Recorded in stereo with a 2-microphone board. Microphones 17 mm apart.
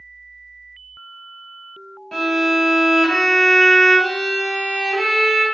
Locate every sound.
2.1 s a violin: 20° left (ahead or behind), 1.5 m